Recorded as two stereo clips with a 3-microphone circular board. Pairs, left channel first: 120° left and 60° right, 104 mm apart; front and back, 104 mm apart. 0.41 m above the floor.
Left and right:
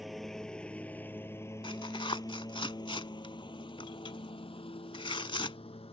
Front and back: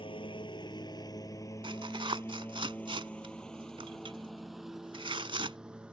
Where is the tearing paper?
150° left.